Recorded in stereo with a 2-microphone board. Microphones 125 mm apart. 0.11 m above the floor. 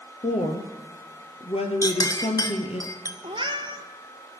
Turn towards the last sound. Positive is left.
turn(degrees=-40)  # may be behind; listen again after turning